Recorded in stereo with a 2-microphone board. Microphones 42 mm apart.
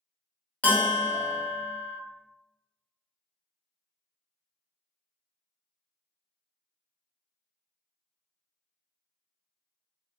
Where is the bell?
35° left (ahead or behind), 0.8 m.